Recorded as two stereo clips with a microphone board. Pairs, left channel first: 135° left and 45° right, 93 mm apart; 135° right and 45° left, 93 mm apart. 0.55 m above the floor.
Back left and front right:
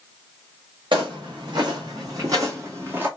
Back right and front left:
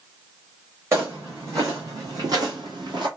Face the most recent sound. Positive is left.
turn(degrees=25)